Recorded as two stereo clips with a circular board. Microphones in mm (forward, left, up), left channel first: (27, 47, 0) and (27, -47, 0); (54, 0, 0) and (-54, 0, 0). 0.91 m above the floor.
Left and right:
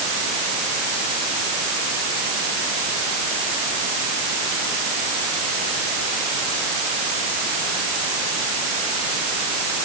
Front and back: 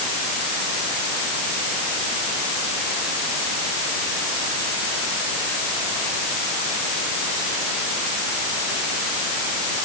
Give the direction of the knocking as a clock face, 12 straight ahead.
No knocking in this recording.